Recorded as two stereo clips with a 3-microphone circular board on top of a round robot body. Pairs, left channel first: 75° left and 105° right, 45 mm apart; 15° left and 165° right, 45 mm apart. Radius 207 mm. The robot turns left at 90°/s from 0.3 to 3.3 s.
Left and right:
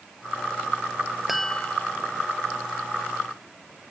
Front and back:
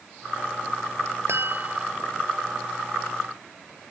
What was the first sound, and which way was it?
A chime, 170° left.